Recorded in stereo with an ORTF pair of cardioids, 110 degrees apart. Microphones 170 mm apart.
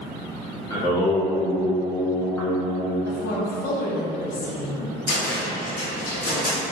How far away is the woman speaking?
About 0.8 m.